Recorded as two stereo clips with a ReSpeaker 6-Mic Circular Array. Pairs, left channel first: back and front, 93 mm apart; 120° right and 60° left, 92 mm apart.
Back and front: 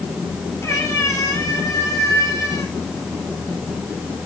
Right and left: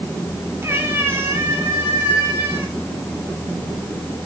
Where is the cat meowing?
120° left, 2.5 m; by 2.7 s 125° left, 4.5 m.